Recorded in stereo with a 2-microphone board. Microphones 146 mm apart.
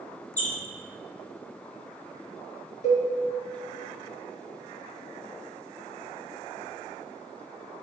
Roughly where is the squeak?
Left.